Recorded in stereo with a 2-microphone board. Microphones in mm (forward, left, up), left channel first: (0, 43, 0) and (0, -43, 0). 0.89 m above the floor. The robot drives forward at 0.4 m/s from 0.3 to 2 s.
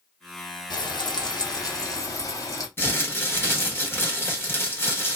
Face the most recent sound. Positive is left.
turn(degrees=25)  # may be behind; listen again after turning